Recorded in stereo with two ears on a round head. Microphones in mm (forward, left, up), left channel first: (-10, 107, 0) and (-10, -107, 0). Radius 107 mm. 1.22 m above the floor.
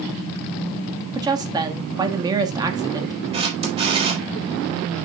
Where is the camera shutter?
25° right (ahead or behind), 4 m.